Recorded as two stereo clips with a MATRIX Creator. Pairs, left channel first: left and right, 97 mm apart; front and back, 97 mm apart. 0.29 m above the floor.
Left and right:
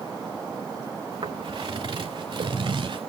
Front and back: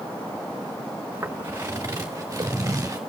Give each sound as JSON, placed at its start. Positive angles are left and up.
{"t": 1.1, "sound": "footsteps", "azimuth_deg": -115, "distance_m": 2.5}